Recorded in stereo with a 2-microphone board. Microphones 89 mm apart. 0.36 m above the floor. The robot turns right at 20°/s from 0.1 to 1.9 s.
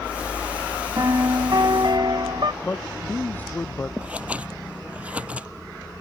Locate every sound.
1.0 s a piano: 45° right (ahead or behind); by 2.5 s 60° right (ahead or behind)
2.6 s a man speaking: 20° left (ahead or behind)
4.0 s scissors: 15° right (ahead or behind)